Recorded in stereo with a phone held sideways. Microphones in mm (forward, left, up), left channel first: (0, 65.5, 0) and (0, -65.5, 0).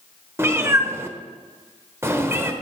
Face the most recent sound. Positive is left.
turn(degrees=-20)  # may be behind; listen again after turning